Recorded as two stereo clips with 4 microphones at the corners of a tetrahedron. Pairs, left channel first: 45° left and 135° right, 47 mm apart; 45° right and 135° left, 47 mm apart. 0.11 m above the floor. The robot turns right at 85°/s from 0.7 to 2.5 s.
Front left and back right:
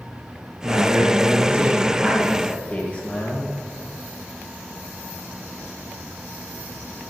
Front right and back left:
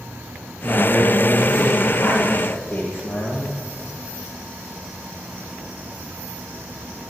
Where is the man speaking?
160° right, 3.5 m; by 3.5 s 5° right, 3.5 m.